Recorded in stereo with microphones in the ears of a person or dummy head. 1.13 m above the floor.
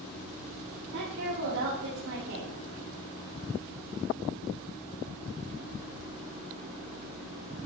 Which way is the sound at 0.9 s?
65° right (ahead or behind).